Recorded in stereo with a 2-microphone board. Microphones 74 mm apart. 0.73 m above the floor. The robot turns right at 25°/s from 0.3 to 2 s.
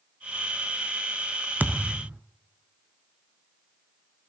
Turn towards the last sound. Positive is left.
turn(degrees=-15)  # may be behind; listen again after turning